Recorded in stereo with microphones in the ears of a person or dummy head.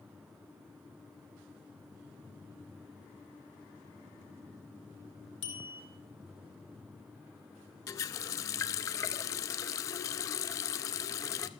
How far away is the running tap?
About 0.6 m.